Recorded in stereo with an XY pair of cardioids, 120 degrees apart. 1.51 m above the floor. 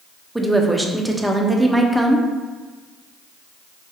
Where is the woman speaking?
5° right, 0.6 m.